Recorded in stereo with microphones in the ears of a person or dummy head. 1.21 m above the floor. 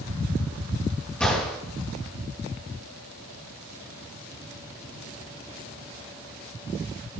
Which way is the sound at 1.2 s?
5° left (ahead or behind).